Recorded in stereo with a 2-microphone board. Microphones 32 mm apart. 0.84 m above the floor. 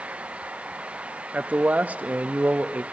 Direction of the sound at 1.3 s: 55° right (ahead or behind).